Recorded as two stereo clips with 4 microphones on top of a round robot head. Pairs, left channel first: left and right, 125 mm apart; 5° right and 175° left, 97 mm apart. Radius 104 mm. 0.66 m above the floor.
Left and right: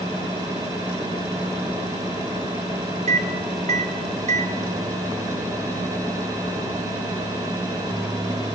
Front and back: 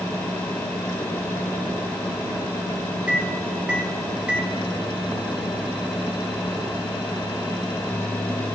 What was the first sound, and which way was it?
A microwave, 105° right.